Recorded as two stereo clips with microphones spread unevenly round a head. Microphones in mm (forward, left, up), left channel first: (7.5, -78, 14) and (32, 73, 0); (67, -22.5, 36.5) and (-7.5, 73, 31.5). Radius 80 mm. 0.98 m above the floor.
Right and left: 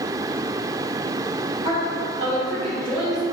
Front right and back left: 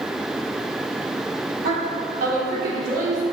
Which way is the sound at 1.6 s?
140° left.